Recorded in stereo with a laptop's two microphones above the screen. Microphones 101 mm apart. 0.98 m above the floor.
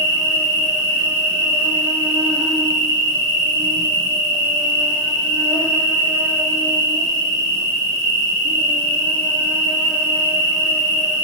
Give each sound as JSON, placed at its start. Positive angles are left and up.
{"t": 0.0, "sound": "an insect", "side_deg": -30, "distance_m": 0.9}